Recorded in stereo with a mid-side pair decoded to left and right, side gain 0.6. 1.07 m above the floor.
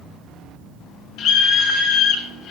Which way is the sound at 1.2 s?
65° left.